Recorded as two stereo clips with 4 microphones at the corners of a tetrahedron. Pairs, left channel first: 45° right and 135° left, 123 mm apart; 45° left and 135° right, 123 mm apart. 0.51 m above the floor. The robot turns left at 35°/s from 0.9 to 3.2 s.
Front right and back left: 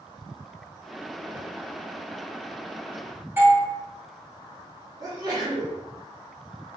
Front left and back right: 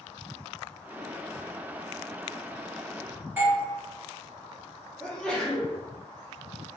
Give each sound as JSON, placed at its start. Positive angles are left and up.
{"t": 3.4, "sound": "a doorbell", "azimuth_deg": 175, "distance_m": 1.3}
{"t": 5.0, "sound": "a sneeze", "azimuth_deg": 120, "distance_m": 0.8}